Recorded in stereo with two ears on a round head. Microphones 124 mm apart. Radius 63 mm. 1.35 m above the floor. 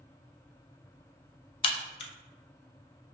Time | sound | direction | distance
1.6 | a crack | 40° left (ahead or behind) | 0.5 m